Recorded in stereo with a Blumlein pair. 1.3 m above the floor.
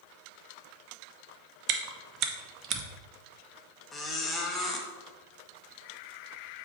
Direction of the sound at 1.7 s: 35° right.